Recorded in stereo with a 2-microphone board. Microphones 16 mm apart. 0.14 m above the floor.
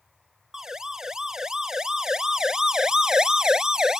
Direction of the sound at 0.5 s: 40° right (ahead or behind).